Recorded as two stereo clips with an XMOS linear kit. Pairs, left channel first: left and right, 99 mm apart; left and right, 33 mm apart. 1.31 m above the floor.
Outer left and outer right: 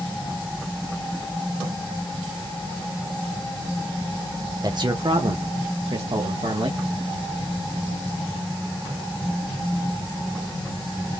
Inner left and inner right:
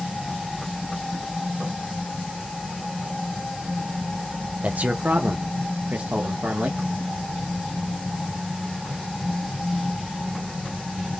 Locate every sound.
4.6 s a man speaking: 45° right (ahead or behind), 0.7 m; by 6.8 s 85° right, 1.4 m